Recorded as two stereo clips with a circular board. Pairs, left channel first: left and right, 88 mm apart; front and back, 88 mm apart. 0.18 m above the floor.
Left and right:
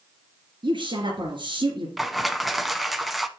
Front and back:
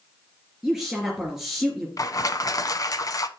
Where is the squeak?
I don't hear a squeak.